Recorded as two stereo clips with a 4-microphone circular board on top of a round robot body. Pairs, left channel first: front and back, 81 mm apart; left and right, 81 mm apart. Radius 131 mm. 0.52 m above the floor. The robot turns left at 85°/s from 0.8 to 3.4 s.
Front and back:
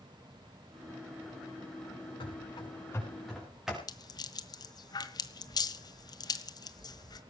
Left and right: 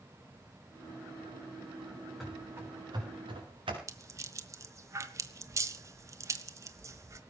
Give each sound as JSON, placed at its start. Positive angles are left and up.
{"t": 2.2, "sound": "running footsteps", "azimuth_deg": 0, "distance_m": 7.0}
{"t": 3.9, "sound": "a rattle", "azimuth_deg": -35, "distance_m": 1.6}